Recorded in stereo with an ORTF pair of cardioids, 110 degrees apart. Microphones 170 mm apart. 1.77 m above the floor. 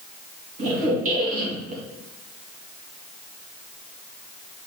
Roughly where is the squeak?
Ahead right.